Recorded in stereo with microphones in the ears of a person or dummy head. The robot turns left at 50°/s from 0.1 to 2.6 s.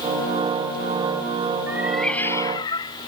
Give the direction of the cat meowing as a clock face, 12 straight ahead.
6 o'clock.